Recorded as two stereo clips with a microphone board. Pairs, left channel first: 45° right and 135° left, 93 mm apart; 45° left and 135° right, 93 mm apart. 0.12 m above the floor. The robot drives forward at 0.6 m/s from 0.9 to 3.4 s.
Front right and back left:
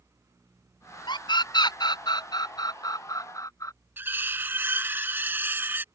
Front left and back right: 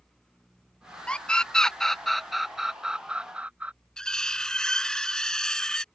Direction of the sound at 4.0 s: 115° left.